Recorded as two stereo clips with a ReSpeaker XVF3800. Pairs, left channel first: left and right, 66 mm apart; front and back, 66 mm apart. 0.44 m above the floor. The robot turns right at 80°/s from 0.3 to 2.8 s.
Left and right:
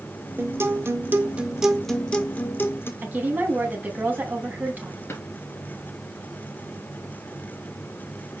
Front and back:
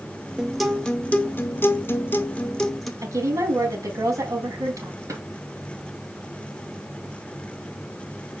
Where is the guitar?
110° right, 1.3 m; by 2.9 s 85° left, 1.3 m.